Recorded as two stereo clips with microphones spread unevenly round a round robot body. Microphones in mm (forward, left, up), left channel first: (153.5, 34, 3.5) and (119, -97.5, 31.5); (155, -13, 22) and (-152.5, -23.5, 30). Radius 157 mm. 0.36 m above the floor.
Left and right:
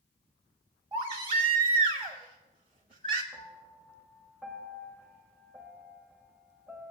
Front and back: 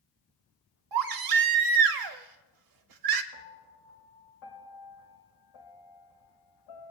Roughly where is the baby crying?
Behind.